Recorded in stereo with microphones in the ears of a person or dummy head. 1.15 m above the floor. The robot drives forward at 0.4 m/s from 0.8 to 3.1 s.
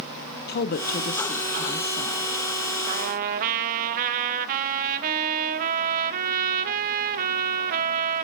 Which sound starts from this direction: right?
A trumpet, at 2.9 s.